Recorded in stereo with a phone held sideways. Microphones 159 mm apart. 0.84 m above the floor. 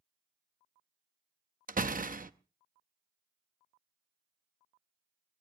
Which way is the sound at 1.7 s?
60° right (ahead or behind).